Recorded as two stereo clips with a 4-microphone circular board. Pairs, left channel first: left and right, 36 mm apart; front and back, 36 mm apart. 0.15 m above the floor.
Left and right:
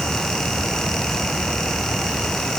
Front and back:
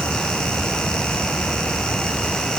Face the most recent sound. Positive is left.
No sound to turn to.